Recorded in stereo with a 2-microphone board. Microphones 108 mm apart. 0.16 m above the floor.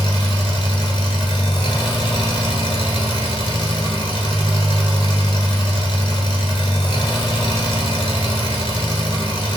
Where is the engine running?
50° left (ahead or behind), 0.8 m.